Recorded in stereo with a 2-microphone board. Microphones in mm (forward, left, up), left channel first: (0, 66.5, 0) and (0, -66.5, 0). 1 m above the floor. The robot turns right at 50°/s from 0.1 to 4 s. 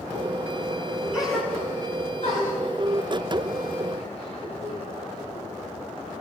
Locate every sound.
1.1 s a gasp: 10° right (ahead or behind), 10 m; by 5.5 s 45° left (ahead or behind), 10 m